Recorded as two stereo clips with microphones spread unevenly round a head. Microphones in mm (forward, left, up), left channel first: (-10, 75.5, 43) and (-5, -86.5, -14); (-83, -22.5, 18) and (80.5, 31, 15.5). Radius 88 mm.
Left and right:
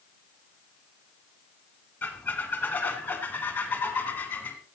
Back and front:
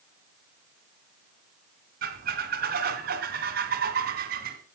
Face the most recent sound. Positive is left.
turn(degrees=35)